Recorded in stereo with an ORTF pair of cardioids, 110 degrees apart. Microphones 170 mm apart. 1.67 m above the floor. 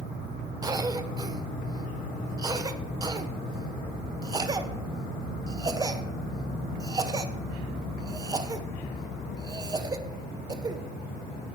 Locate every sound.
0.6 s a cough: 25° right, 1.3 m